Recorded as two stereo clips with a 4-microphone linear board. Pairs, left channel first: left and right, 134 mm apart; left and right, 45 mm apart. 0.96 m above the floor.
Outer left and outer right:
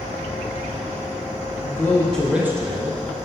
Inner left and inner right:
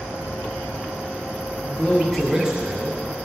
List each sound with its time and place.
1.6 s a man speaking: 30° left (ahead or behind), 1.0 m; by 3.0 s 45° right (ahead or behind), 0.9 m